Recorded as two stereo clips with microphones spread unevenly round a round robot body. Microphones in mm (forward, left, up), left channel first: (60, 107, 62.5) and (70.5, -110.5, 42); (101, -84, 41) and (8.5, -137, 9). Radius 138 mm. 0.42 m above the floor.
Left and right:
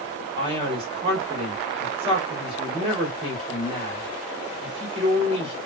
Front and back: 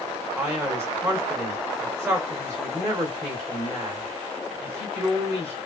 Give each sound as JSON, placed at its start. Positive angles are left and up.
{"t": 0.4, "sound": "a man speaking", "azimuth_deg": -130, "distance_m": 1.7}